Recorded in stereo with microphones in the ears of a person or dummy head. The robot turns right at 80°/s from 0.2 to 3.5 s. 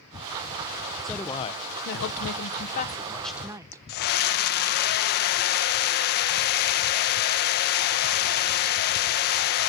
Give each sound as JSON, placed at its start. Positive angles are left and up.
{"t": 1.0, "sound": "a woman speaking", "azimuth_deg": 0, "distance_m": 0.8}
{"t": 3.9, "sound": "a scream", "side_deg": 50, "distance_m": 1.1}